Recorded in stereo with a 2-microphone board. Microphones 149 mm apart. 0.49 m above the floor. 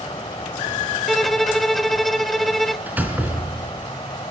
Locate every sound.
0.0 s an insect: 35° left (ahead or behind), 2.5 m
1.1 s a violin: centre (ahead or behind), 1.0 m
2.9 s a door slam: 10° right (ahead or behind), 3.5 m